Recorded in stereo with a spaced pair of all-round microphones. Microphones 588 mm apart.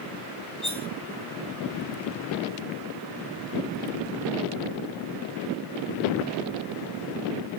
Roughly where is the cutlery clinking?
Right.